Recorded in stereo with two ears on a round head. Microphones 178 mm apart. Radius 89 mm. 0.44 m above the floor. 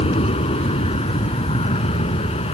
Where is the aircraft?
30° left (ahead or behind).